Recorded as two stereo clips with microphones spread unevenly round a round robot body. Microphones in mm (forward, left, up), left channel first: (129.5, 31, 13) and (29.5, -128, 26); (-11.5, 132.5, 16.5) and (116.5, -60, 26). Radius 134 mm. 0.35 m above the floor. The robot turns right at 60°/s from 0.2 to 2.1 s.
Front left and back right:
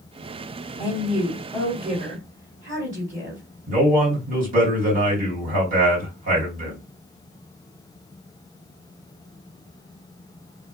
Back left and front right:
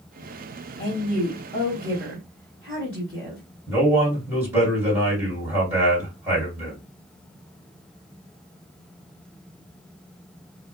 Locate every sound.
0.8 s a woman speaking: 125° left, 1.8 m; by 3.4 s 155° right, 1.8 m
3.7 s a man speaking: 135° right, 1.8 m